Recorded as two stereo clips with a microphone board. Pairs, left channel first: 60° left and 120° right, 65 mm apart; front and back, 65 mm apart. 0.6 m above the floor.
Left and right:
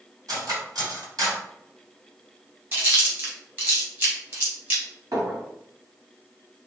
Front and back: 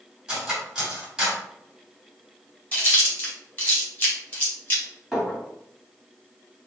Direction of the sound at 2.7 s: 65° right.